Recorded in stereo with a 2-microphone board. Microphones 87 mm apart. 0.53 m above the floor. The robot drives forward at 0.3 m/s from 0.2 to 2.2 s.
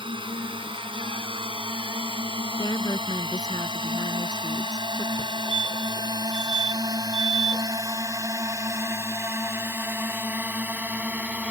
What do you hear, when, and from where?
0.0 s a drone: 75° right (ahead or behind); by 11.5 s 15° right (ahead or behind)
2.6 s a woman speaking: 45° left (ahead or behind)
5.2 s a fire alarm: 55° left (ahead or behind)